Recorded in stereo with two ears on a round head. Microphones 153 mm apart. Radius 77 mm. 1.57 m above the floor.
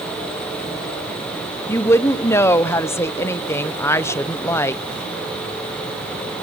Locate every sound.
1.7 s a woman speaking: 15° left (ahead or behind), 0.7 m